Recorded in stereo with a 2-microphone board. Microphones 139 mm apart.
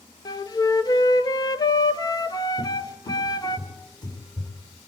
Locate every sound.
0.2 s a flute: 30° left (ahead or behind), 0.5 m
2.6 s a cupboard door: 30° left (ahead or behind), 3 m